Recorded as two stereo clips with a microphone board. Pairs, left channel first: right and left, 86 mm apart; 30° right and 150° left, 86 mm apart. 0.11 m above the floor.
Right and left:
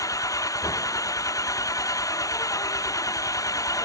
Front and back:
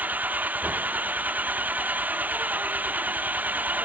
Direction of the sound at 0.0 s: 140° right.